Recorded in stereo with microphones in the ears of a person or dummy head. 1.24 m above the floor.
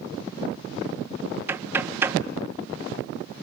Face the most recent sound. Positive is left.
turn(degrees=-10)  # may be behind; listen again after turning